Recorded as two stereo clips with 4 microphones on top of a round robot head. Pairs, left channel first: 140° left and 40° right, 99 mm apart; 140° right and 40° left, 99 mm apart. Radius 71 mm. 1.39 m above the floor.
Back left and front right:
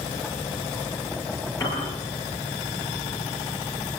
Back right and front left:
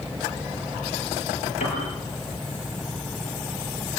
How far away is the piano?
About 9.5 m.